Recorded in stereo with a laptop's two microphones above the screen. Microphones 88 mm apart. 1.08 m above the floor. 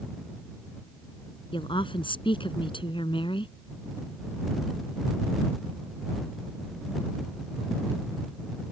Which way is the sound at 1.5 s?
75° left (ahead or behind).